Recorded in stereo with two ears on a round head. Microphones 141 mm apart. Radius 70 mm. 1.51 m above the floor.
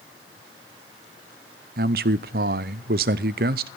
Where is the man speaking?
70° right (ahead or behind), 0.6 m.